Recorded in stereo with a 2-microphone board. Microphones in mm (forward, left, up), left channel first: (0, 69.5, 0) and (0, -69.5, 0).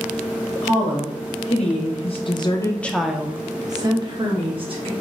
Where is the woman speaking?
55° left (ahead or behind), 1.4 m; by 4.9 s 40° right (ahead or behind), 1.3 m.